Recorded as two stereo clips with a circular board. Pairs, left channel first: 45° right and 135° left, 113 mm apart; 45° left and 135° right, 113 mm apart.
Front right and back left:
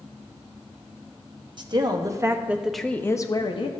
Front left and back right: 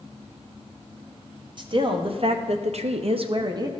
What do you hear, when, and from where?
1.6 s a woman speaking: straight behind, 0.9 m; by 3.7 s 80° right, 0.7 m